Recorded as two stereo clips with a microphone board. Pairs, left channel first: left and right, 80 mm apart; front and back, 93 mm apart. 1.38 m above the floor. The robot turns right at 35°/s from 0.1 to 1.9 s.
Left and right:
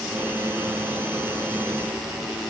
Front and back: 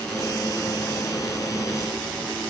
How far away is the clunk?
No clunk in this recording.